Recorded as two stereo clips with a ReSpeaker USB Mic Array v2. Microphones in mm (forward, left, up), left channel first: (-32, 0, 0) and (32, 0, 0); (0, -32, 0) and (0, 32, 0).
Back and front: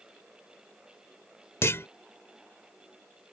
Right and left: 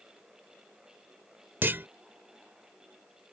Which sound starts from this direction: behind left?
A clunk, at 1.6 s.